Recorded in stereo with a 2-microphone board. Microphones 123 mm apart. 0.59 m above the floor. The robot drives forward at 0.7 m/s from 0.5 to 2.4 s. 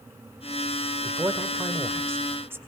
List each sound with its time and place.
1.0 s a man speaking: 25° right (ahead or behind), 1.9 m; by 2.6 s 20° right (ahead or behind), 2.5 m